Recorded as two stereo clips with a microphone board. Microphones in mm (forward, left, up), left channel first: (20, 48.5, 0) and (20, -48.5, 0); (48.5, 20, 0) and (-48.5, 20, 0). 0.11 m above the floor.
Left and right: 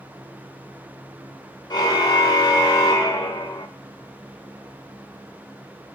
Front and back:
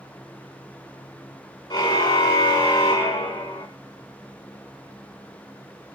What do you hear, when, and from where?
1.7 s a car horn: 40° left, 7 m; by 3.7 s 30° left, 5 m